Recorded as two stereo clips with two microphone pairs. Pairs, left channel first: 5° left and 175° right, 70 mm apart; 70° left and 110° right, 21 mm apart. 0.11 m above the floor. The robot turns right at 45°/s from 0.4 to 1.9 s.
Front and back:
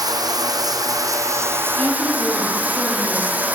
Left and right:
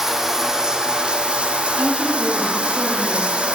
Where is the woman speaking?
60° right, 3 m; by 3.4 s 55° right, 3 m.